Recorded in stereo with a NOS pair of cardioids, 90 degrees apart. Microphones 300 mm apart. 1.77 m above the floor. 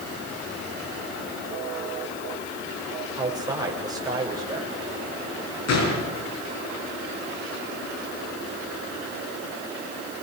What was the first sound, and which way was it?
A man speaking, 10° right.